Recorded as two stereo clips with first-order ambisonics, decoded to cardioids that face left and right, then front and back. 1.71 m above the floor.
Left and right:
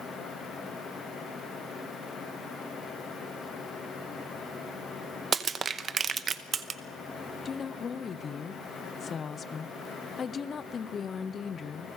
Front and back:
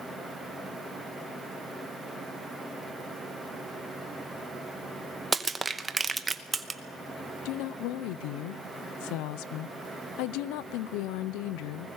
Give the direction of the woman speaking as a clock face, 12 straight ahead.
11 o'clock.